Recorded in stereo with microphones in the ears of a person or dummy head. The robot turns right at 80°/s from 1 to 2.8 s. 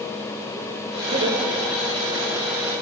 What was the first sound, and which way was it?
Laughter, 35° right (ahead or behind).